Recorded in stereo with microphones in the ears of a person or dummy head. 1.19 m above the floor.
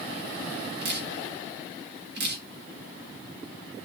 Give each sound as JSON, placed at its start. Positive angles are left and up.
{"t": 0.8, "sound": "dripping", "side_deg": -55, "distance_m": 1.2}